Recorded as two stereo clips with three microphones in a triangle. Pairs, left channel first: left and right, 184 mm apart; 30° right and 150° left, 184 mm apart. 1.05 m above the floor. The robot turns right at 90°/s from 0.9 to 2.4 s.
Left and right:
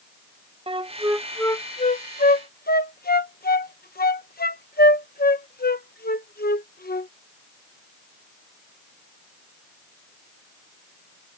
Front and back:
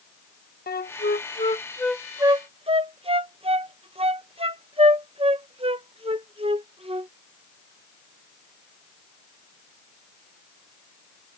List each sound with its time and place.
0.7 s a flute: 35° right; by 7.1 s 100° left